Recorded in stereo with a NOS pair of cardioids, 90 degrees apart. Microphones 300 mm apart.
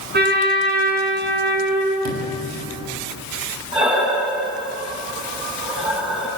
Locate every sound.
0.1 s a trumpet: 35° right, 8.5 m
2.0 s a sliding door: 65° right, 6.5 m
3.7 s breathing: 15° right, 8.5 m